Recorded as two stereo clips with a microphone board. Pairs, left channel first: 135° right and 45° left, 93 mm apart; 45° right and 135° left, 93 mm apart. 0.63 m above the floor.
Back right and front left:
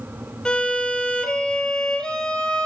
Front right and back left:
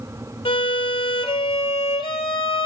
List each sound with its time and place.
0.5 s a violin: 55° right, 1.5 m